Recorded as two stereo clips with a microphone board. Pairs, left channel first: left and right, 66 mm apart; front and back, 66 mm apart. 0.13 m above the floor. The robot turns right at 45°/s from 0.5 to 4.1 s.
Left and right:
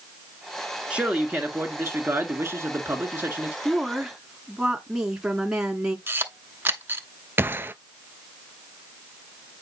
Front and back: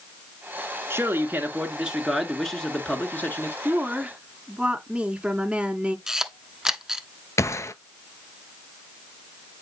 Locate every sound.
0.9 s a man speaking: 155° right, 1.7 m; by 3.5 s 35° right, 1.7 m
3.6 s a woman speaking: 170° right, 1.2 m; by 6.0 s 150° right, 1.2 m
6.1 s a camera shutter: 100° right, 0.8 m
7.4 s a gunshot: 35° right, 0.5 m